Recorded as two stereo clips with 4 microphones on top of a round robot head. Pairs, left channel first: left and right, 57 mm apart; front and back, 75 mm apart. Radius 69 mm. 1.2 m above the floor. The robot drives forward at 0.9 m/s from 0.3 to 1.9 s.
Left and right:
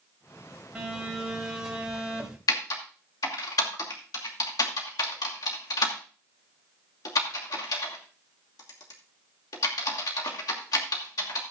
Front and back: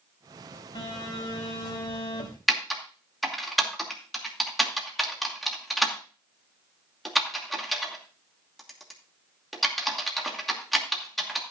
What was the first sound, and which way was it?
A phone buzzing, 10° right.